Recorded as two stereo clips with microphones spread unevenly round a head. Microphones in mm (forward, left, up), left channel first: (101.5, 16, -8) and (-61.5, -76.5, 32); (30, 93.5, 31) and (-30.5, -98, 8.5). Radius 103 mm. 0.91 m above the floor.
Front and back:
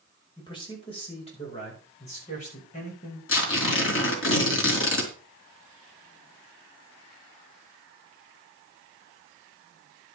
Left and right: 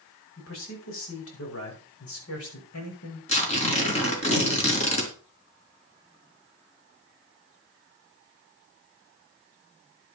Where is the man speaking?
95° left, 5 m; by 3.2 s 80° left, 5.5 m.